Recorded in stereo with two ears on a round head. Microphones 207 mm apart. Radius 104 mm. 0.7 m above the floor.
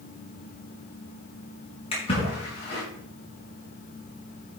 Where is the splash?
25° left (ahead or behind), 5.5 m.